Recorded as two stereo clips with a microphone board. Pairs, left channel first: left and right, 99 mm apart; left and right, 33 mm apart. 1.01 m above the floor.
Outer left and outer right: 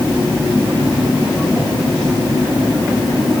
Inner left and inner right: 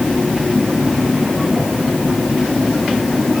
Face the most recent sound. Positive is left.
No sound to turn to.